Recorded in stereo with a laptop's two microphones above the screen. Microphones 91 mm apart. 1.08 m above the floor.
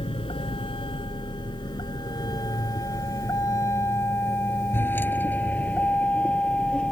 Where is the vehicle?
80° left; by 6.9 s 10° left (ahead or behind).